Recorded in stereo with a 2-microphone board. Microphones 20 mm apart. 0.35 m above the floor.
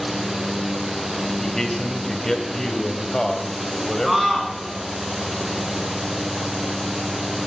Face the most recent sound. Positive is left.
turn(degrees=-10)  # may be behind; listen again after turning